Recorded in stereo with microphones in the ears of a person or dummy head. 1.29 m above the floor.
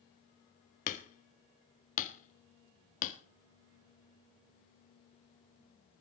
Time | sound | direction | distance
0.9 | hammering | 45° left (ahead or behind) | 1.5 m